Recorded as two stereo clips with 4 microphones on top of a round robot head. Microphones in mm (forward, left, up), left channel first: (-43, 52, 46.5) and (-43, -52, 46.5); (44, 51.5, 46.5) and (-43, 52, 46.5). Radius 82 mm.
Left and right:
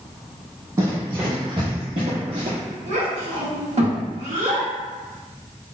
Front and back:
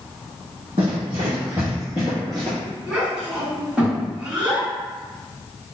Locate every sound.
0.8 s running footsteps: 145° right, 1.3 m; by 2.6 s 80° right, 1.2 m
2.9 s a child speaking: 100° right, 1.4 m